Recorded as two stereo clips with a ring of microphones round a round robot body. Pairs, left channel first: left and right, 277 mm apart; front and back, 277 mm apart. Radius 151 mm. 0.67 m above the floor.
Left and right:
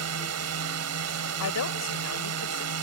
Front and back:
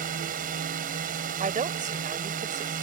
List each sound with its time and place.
0.0 s a drone: 115° right
1.4 s a woman speaking: 120° left